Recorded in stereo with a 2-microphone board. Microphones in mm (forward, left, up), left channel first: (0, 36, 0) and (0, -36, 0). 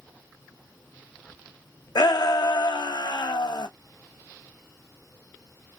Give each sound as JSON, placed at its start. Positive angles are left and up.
{"t": 1.9, "sound": "a shout", "side_deg": 85, "distance_m": 0.9}